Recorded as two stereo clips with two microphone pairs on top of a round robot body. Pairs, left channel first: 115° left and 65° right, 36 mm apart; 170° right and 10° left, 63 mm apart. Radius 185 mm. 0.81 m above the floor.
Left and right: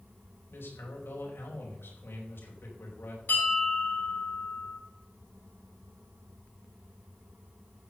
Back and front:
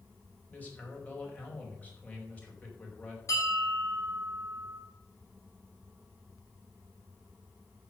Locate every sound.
0.5 s a man speaking: 125° left, 5 m
3.3 s a bell: 150° left, 6.5 m